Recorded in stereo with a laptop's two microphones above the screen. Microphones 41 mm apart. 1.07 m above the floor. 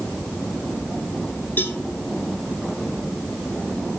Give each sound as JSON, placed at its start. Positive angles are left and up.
{"t": 1.6, "sound": "a cowbell", "side_deg": 50, "distance_m": 1.2}